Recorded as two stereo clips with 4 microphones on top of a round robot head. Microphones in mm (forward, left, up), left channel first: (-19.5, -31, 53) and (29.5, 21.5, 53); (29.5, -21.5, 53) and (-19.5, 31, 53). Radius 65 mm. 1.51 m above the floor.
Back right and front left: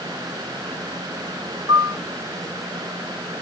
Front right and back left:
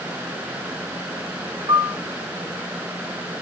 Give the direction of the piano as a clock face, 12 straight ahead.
9 o'clock.